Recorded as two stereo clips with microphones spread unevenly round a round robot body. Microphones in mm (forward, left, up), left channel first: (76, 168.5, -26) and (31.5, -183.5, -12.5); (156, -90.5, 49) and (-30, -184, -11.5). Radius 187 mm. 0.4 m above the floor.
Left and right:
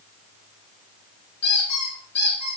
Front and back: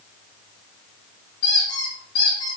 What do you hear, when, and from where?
1.4 s a squeak: 40° left, 3.5 m